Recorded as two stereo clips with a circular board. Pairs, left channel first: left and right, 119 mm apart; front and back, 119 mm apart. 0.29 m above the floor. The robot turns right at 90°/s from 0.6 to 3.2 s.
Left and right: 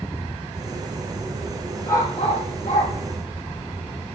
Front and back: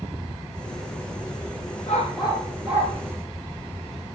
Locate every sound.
1.9 s a dog barking: 20° left, 5 m; by 2.9 s 115° left, 5 m